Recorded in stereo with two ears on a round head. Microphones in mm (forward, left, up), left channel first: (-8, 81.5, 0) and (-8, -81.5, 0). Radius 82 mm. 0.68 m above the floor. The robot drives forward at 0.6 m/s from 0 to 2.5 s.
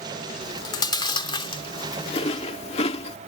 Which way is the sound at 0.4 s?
20° left (ahead or behind).